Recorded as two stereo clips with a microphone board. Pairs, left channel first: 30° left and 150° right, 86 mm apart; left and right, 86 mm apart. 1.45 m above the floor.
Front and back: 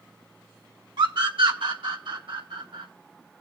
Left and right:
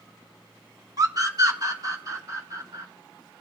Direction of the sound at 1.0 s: 135° right.